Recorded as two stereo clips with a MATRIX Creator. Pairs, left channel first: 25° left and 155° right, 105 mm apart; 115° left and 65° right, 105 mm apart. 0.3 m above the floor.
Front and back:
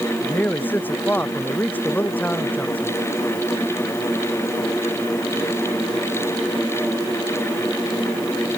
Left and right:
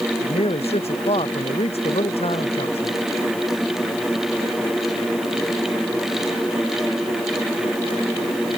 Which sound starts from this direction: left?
A man speaking, at 0.2 s.